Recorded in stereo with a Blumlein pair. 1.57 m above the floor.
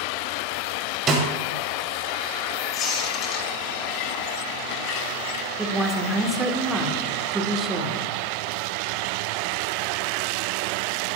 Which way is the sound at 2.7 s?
35° left.